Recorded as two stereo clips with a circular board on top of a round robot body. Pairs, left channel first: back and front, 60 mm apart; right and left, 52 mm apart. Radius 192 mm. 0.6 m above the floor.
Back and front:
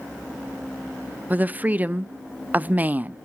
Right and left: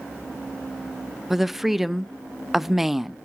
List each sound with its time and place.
1.3 s a woman speaking: 10° left, 0.8 m